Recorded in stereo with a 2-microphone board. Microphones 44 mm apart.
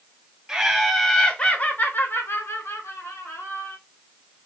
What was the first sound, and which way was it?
Laughter, 10° right (ahead or behind).